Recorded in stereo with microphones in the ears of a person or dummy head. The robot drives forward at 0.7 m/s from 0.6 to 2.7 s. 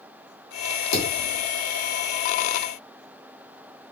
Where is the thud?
60° left (ahead or behind), 2 m; by 1.4 s 50° left (ahead or behind), 2 m.